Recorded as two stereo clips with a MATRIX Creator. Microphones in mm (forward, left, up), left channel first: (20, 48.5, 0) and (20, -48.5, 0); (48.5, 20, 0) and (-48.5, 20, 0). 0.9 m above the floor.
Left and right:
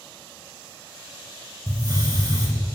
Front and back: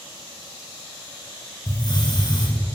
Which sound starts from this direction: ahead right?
A hiss, at 1.7 s.